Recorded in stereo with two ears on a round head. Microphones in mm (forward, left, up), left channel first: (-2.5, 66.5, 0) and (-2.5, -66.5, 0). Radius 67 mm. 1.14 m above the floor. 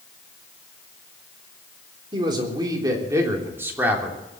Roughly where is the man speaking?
Right.